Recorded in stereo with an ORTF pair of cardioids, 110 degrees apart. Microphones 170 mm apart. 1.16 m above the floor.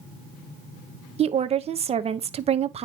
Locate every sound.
1.2 s a woman speaking: 40° right, 1.0 m